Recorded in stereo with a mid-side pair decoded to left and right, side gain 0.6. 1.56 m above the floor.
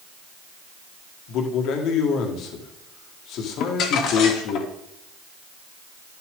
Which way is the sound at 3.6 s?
65° left.